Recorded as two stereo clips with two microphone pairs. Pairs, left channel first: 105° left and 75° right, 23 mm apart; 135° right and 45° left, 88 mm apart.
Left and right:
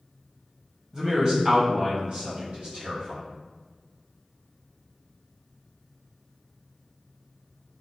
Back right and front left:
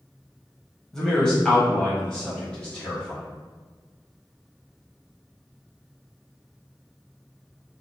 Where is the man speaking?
60° right, 1.0 m; by 3.2 s 55° right, 2 m.